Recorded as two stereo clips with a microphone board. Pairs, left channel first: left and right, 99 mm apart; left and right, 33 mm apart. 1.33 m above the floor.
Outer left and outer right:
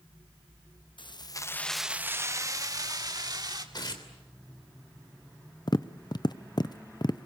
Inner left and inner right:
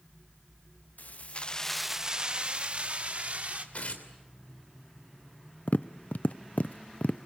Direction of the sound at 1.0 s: 55° left (ahead or behind).